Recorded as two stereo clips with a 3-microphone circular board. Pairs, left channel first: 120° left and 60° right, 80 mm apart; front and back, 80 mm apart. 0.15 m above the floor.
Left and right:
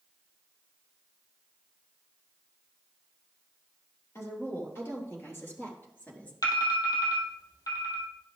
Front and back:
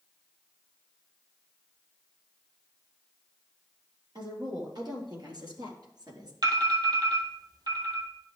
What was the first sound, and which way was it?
A woman speaking, 170° left.